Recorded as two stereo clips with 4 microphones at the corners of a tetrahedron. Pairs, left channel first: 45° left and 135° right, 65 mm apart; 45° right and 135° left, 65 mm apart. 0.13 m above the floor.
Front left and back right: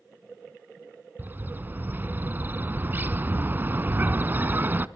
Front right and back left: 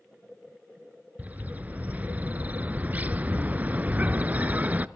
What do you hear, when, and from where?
1.2 s a bird: 175° right, 0.6 m